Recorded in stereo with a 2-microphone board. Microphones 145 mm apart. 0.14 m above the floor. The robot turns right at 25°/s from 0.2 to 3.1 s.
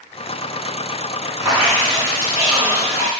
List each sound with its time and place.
1.4 s dripping: 25° right (ahead or behind), 1.7 m; by 3.1 s 15° right (ahead or behind), 1.7 m